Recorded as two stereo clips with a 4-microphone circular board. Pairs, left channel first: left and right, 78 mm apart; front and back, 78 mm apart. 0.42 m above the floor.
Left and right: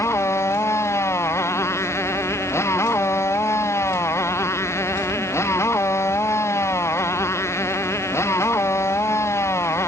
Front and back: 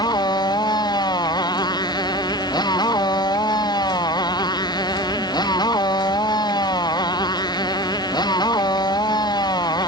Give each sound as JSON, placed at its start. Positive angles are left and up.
{"t": 0.0, "sound": "a motorcycle", "azimuth_deg": 35}